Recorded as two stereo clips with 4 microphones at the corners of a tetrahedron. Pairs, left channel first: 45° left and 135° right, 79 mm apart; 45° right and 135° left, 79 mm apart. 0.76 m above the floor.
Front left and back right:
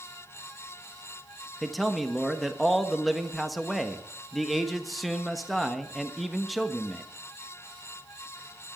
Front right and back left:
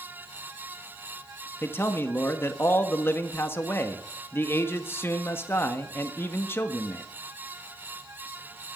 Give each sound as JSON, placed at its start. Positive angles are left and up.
{"t": 1.6, "sound": "a man speaking", "azimuth_deg": -45, "distance_m": 1.1}